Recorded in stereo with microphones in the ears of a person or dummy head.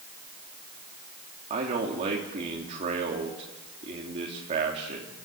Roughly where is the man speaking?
Right.